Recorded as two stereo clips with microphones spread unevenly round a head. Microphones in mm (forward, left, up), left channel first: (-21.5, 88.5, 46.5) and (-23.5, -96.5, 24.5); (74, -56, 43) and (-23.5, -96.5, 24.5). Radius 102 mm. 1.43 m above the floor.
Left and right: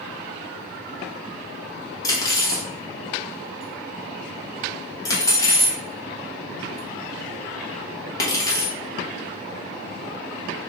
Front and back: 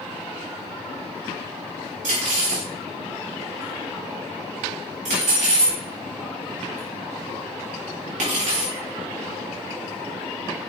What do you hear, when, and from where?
2.0 s cutlery clinking: 155° left, 1.1 m